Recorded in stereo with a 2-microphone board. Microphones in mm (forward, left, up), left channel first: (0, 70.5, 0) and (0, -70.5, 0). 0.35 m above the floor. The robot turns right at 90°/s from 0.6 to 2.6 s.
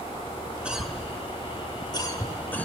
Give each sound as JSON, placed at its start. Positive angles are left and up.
{"t": 0.7, "sound": "a cough", "side_deg": -10, "distance_m": 1.5}